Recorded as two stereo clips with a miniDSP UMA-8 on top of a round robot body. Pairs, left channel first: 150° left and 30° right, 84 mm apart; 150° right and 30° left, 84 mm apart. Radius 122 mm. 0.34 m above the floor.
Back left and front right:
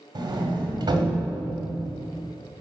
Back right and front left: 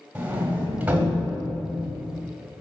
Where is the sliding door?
40° right, 1.4 m.